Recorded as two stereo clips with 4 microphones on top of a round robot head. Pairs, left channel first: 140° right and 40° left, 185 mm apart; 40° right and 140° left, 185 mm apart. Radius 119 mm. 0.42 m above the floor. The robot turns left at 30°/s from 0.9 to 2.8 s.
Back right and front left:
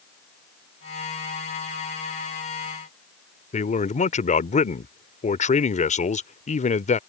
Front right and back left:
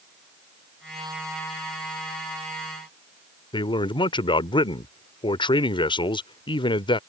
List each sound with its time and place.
3.5 s a man speaking: 100° right